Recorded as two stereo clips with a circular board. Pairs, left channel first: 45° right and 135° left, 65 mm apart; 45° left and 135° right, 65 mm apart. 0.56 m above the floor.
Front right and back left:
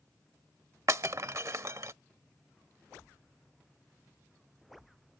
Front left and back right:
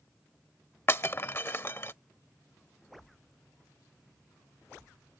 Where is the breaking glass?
95° left.